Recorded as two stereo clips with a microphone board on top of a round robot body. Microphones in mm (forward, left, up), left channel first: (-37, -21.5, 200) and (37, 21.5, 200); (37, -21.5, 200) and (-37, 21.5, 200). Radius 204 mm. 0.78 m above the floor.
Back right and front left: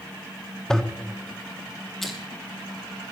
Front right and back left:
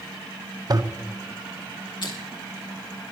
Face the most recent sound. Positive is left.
turn(degrees=-65)